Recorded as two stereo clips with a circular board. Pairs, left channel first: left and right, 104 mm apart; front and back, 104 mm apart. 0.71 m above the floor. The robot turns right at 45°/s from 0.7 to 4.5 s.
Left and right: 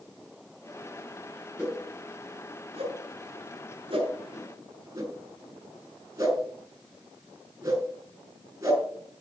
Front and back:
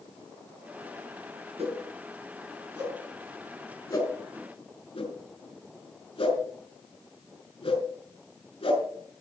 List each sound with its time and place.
1.6 s a whoosh: 160° right, 5 m; by 9.2 s 30° right, 5 m